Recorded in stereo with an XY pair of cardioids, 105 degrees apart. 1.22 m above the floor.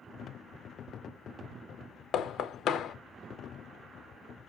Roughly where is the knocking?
Ahead left.